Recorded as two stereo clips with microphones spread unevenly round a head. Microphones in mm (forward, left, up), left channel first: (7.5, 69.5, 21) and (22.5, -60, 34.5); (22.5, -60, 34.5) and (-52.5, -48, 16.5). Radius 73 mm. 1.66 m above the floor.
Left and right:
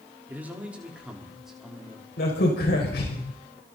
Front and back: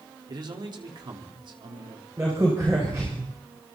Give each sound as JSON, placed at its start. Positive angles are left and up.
{"t": 0.3, "sound": "a man speaking", "azimuth_deg": -160, "distance_m": 5.0}
{"t": 2.2, "sound": "a crack", "azimuth_deg": 100, "distance_m": 7.0}